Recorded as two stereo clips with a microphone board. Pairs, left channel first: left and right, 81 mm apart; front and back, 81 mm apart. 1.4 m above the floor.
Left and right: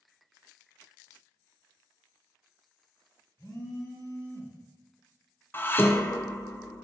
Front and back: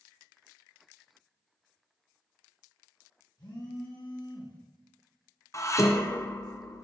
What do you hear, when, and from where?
3.4 s a phone buzzing: 35° left, 1.5 m
5.5 s dishes clattering: 35° left, 0.5 m